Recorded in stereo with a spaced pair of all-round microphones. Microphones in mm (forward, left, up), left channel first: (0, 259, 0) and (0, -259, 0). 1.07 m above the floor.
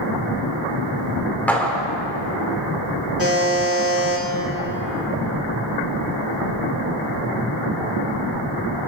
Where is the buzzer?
25° right (ahead or behind), 3 m.